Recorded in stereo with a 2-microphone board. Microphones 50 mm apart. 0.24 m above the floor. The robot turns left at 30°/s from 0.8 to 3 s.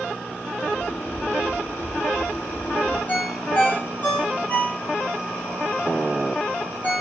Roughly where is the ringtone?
Left.